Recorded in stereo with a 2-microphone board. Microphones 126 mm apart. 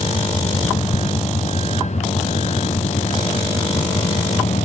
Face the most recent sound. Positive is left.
turn(degrees=65)  # may be behind; listen again after turning